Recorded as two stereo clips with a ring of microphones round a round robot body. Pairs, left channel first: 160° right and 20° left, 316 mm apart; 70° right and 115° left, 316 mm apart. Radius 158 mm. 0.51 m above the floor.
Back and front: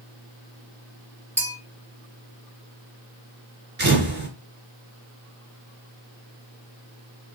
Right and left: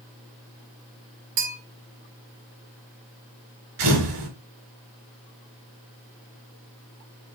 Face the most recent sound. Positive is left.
turn(degrees=80)